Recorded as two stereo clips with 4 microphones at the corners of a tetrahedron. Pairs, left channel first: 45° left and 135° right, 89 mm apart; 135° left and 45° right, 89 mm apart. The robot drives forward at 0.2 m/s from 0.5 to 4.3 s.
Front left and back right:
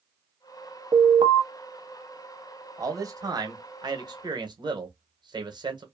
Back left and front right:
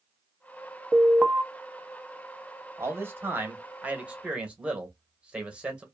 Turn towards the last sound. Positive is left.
turn(degrees=-120)